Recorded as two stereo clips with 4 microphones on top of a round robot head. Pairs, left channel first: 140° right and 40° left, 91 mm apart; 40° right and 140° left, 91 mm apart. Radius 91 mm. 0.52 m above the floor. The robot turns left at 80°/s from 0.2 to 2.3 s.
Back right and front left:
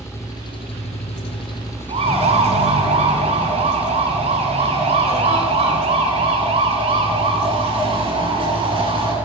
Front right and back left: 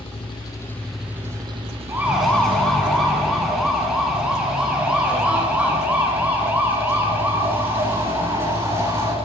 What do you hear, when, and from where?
0.0 s an engine running: 75° right, 4.5 m; by 9.2 s 120° left, 4.5 m
1.9 s a siren: 70° left, 8 m; by 9.2 s 75° left, 10 m